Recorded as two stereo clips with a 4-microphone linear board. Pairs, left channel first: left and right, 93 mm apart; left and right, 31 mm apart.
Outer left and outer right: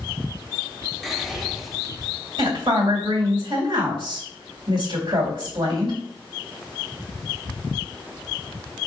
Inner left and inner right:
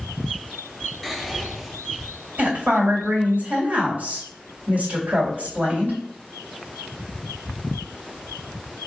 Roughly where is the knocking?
No knocking in this recording.